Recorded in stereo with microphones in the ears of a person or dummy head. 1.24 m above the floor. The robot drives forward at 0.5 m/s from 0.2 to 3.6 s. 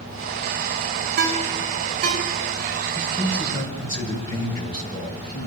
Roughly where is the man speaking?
Left.